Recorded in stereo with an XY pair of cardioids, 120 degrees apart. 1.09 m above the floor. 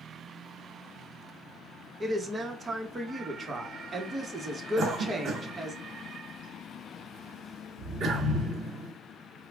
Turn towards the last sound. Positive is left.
turn(degrees=-50)